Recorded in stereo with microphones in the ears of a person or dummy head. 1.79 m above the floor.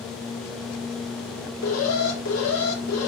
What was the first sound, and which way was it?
An alarm, 85° left.